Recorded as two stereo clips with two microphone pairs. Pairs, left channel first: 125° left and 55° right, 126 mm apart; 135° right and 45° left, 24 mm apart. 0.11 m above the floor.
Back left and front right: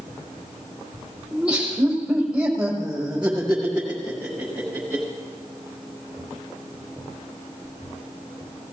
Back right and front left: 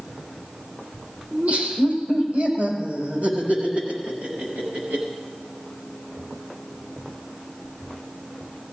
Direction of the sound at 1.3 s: 25° left.